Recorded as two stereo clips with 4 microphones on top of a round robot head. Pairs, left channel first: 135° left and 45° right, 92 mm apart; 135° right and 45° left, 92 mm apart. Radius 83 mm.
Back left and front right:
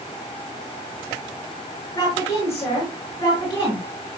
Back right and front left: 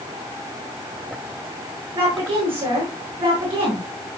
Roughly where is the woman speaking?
Left.